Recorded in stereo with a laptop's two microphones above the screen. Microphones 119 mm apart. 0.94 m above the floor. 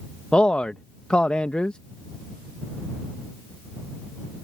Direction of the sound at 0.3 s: 10° left (ahead or behind).